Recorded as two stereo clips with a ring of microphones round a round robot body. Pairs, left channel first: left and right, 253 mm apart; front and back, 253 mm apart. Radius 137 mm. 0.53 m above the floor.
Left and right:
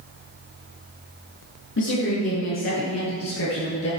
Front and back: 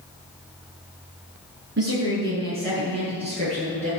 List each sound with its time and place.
1.8 s a woman speaking: 135° left, 7 m; by 3.9 s 125° left, 9.5 m